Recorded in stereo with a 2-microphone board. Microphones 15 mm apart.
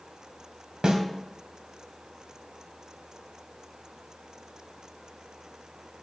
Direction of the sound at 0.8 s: 65° right (ahead or behind).